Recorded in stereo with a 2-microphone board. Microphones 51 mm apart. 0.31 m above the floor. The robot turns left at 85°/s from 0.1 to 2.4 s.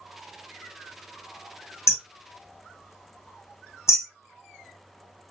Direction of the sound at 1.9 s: 55° left (ahead or behind).